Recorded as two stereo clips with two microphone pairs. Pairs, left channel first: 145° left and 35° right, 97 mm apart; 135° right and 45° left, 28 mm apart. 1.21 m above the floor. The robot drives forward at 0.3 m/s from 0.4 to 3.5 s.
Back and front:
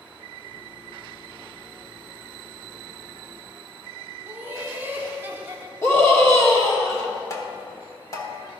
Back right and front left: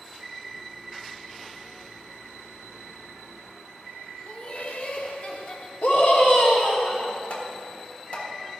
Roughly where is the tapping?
Behind.